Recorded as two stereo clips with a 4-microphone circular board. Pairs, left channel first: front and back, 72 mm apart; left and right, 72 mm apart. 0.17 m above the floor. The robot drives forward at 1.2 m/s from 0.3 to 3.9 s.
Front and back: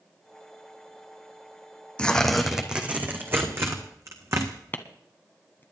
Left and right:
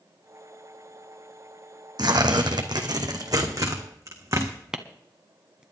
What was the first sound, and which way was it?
Tearing paper, 75° right.